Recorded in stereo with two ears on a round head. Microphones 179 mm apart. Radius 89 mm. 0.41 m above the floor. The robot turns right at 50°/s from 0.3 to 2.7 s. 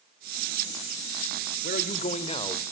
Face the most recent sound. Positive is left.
turn(degrees=160)